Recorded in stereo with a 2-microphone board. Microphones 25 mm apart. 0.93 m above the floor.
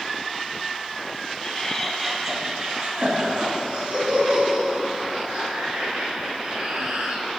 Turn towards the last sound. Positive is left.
turn(degrees=-85)